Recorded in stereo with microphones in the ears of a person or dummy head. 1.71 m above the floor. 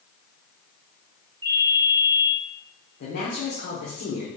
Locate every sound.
1.4 s a ringtone: 20° right (ahead or behind), 1.6 m
3.0 s a woman speaking: 60° left (ahead or behind), 1.1 m